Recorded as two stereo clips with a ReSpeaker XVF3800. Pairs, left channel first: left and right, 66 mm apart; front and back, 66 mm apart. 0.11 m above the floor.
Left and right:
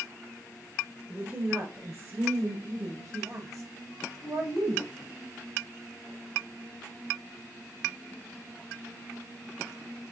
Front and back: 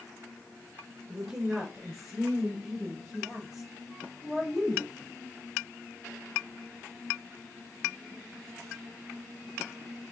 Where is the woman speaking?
105° right, 1.8 m; by 4.9 s 95° right, 3.5 m.